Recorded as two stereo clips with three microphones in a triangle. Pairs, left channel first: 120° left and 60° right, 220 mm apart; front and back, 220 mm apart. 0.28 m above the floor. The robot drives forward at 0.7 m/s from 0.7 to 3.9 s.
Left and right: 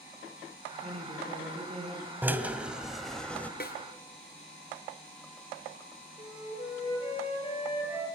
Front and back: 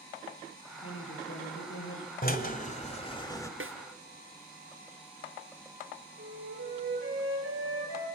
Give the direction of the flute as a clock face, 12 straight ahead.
6 o'clock.